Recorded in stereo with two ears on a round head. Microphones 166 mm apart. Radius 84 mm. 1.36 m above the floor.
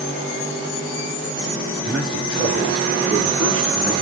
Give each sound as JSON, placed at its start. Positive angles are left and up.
{"t": 1.9, "sound": "a man speaking", "side_deg": -70, "distance_m": 8.5}